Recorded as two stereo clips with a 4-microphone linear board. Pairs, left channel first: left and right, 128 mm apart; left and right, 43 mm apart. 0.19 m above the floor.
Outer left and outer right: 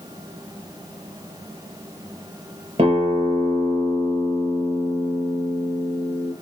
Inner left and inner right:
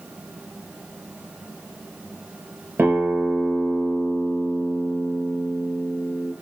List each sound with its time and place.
2.8 s a guitar: 50° right (ahead or behind), 4 m